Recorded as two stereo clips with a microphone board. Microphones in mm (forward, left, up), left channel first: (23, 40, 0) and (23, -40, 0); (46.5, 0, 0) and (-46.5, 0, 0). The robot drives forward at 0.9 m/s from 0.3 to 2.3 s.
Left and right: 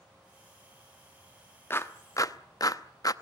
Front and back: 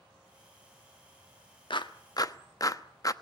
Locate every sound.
1.7 s a clap: 30° left, 1.2 m; by 3.1 s 50° left, 0.8 m